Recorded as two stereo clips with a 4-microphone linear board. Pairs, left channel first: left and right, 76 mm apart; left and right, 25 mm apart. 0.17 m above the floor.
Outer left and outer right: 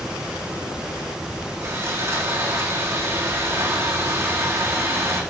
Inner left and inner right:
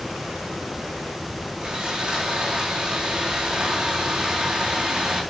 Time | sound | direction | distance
1.6 | sawing | 35° right (ahead or behind) | 5.5 m